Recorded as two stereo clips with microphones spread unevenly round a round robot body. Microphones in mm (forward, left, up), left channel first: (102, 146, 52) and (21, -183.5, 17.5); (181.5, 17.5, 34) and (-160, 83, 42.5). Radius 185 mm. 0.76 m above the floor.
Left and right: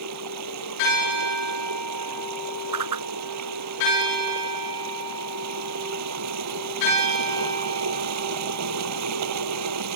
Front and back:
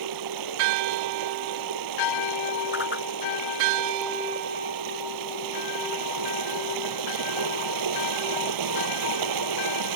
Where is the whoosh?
75° right.